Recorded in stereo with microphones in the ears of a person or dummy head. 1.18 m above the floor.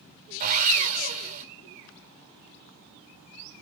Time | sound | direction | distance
0.4 | sawing | 40° right (ahead or behind) | 4 m